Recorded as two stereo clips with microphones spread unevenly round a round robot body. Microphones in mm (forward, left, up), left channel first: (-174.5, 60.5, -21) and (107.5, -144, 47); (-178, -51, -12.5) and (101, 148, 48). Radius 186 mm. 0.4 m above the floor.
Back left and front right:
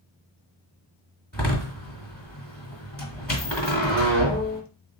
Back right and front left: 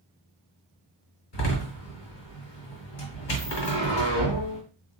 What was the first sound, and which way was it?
A door slam, 135° right.